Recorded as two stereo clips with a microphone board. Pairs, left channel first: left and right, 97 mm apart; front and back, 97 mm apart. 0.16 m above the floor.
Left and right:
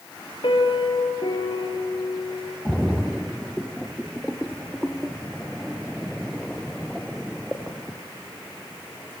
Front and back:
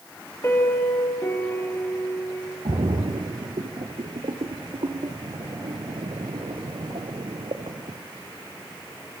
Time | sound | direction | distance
0.4 | a piano | 65° left | 3.5 m
2.6 | a splash | straight behind | 2 m